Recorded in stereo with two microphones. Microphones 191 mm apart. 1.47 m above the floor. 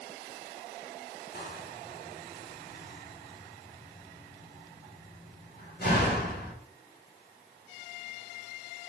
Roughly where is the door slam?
Left.